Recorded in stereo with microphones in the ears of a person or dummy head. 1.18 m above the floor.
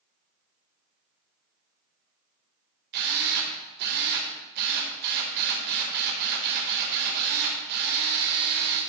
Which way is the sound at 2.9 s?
55° right (ahead or behind).